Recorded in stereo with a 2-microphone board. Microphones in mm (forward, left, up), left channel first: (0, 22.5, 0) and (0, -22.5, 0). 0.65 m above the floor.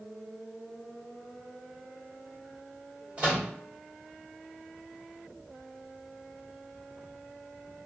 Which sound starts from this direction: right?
A microwave, at 3.2 s.